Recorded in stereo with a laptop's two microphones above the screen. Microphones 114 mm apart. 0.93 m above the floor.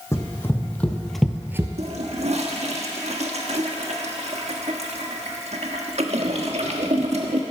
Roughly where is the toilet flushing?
Right.